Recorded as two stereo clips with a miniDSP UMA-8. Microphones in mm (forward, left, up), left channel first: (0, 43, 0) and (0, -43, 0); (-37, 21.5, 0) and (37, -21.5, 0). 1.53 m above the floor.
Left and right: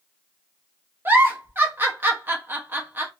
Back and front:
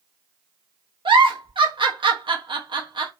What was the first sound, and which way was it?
A giggle, 25° right.